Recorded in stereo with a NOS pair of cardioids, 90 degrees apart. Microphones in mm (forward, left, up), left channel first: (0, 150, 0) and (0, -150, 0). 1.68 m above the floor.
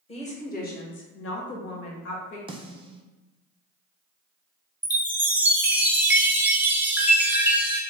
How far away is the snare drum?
About 0.8 m.